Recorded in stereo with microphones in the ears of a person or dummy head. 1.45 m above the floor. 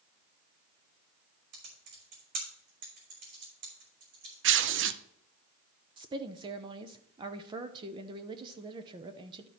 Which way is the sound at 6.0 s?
25° right (ahead or behind).